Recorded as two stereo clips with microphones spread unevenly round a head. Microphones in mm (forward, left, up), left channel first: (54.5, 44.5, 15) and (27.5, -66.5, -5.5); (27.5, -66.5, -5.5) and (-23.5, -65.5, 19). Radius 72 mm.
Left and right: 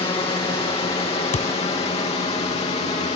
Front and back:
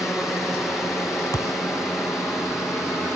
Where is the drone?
60° left; by 3.1 s 70° left.